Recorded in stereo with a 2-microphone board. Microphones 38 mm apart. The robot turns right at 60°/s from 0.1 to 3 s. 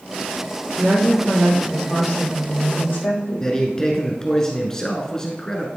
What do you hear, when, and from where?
0.8 s a woman speaking: 40° right, 3.5 m; by 3.5 s 95° left, 3.5 m
3.4 s a man speaking: 20° left (ahead or behind), 1.2 m